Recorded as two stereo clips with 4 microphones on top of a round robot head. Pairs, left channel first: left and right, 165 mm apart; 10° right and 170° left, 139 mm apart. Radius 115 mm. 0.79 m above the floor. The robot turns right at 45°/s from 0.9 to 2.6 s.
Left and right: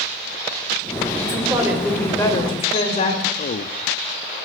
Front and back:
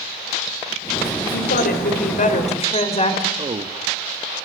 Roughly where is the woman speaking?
Ahead right.